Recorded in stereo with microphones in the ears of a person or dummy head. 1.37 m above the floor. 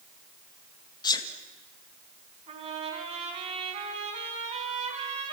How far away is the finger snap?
I don't hear a finger snap.